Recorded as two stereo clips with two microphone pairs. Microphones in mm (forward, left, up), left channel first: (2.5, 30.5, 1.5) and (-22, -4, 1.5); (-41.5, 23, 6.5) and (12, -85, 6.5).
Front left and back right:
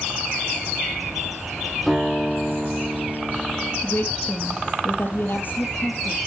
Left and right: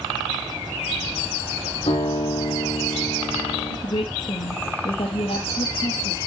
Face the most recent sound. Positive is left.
turn(degrees=85)